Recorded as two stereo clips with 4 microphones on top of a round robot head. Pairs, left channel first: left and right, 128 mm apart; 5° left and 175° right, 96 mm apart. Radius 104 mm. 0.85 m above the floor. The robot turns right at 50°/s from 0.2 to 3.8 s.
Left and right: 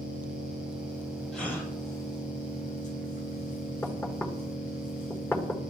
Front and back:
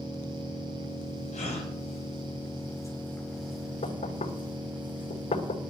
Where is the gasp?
Straight ahead, 7 m; by 1.7 s 20° left, 7 m.